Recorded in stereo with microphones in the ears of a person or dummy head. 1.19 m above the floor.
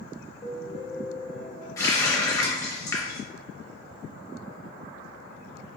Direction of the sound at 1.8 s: 15° left (ahead or behind).